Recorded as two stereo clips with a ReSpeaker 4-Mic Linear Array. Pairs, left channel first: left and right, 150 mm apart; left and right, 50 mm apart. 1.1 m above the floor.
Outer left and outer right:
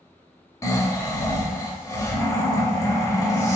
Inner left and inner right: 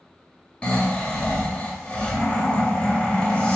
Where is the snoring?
20° left (ahead or behind), 0.9 m.